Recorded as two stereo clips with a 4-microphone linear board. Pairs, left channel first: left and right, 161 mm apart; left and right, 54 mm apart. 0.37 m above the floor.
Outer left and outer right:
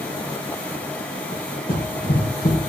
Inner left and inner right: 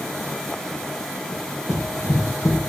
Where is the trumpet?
I don't hear a trumpet.